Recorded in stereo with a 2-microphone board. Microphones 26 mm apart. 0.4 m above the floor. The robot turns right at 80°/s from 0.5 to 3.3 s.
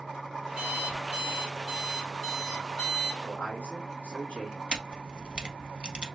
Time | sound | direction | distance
0.6 | an alarm clock | 135° right | 1.9 m
3.2 | a man speaking | 60° left (ahead or behind) | 2 m
4.7 | a camera shutter | 35° right (ahead or behind) | 0.6 m